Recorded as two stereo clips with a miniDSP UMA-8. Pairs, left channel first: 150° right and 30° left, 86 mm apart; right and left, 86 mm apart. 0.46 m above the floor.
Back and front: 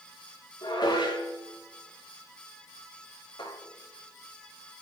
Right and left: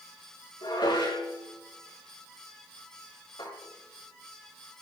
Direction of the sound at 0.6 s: 115° right.